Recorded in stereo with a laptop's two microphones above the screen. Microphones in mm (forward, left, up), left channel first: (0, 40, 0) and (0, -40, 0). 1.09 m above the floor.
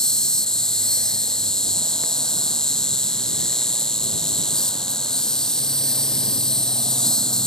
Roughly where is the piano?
I don't hear a piano.